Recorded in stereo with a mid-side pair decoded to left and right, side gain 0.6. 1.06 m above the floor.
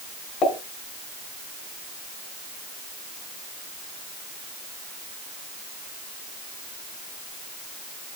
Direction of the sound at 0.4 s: 45° left.